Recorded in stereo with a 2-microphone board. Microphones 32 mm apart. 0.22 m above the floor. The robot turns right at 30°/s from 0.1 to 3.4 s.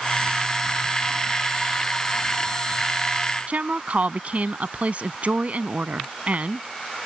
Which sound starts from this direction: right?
A woman speaking, at 3.5 s.